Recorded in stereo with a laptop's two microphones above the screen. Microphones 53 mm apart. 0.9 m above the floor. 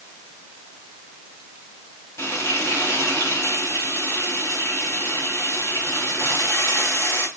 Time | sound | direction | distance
2.2 | frying | 65° left (ahead or behind) | 5 m